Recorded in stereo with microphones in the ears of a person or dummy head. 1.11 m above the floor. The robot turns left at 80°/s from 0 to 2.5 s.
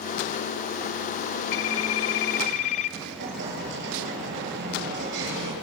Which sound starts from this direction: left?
A phone ringing, at 1.5 s.